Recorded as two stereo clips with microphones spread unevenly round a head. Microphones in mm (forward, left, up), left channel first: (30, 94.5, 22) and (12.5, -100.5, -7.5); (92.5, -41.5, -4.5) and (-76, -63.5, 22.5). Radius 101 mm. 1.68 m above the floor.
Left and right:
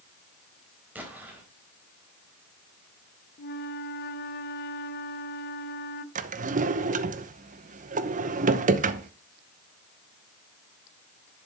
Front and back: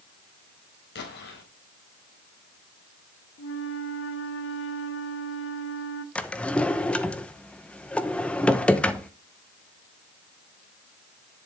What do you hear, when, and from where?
0.9 s an explosion: 10° right, 3.5 m
3.4 s a flute: 45° left, 0.8 m
6.2 s a drawer: 85° right, 0.8 m